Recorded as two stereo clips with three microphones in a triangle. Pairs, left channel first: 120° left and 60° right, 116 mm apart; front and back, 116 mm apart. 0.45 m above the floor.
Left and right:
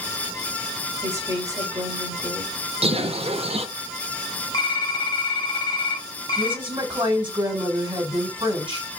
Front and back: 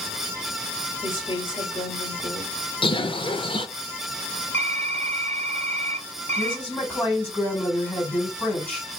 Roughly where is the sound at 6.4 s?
Right.